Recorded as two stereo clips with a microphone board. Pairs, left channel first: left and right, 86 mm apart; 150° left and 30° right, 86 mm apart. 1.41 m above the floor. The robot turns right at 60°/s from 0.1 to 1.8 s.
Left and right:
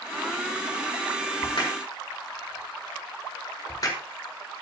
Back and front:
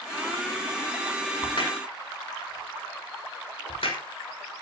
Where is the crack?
120° left, 5 m; by 4.0 s 140° left, 5 m.